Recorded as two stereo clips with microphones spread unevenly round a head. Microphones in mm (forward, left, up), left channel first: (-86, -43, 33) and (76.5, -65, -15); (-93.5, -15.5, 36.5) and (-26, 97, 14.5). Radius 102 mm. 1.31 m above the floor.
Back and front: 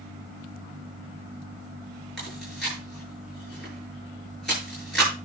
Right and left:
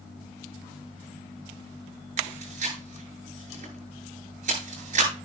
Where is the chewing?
85° left, 8.5 m.